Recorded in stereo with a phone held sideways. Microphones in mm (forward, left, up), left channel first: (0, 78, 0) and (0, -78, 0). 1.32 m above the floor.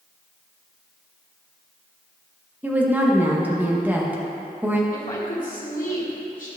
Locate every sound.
2.6 s a woman speaking: 10° right (ahead or behind), 1.3 m
4.9 s a woman speaking: 60° left (ahead or behind), 1.8 m